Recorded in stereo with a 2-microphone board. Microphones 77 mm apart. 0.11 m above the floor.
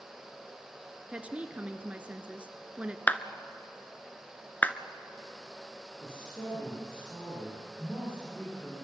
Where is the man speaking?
30° left (ahead or behind), 9.5 m.